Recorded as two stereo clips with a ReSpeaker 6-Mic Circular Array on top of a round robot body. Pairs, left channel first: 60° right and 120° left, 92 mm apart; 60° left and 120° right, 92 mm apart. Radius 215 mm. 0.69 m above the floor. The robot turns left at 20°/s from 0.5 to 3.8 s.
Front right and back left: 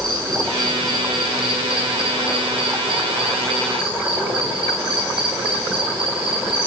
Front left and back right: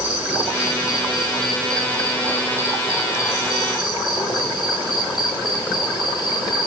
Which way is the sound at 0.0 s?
160° left.